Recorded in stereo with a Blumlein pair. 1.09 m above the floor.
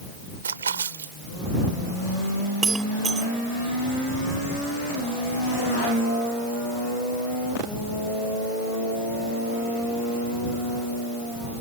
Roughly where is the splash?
Right.